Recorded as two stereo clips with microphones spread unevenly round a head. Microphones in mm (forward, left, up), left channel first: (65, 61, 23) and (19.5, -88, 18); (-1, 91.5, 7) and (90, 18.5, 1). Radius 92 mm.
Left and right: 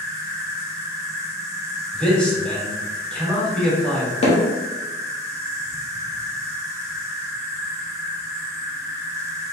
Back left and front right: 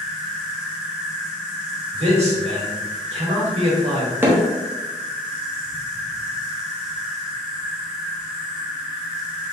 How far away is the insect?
About 0.7 m.